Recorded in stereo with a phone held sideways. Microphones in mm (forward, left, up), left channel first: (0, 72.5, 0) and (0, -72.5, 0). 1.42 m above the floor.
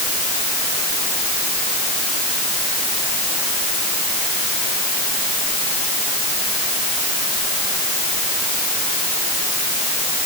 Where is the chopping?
No chopping in this recording.